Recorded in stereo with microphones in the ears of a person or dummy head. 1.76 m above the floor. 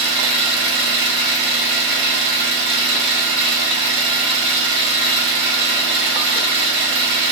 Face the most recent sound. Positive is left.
turn(degrees=-55)  # may be behind; listen again after turning